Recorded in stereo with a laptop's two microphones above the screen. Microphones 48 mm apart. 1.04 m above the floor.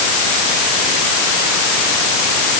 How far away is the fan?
I don't hear a fan.